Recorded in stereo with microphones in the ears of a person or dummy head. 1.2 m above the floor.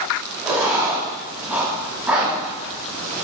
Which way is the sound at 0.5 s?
15° right (ahead or behind).